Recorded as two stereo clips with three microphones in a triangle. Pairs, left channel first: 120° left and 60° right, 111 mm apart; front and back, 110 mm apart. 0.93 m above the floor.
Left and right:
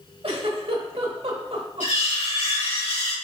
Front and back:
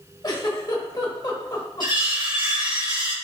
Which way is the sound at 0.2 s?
45° right.